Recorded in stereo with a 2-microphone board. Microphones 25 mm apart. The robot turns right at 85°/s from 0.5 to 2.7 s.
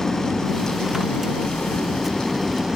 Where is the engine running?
10° left; by 2.8 s 160° right.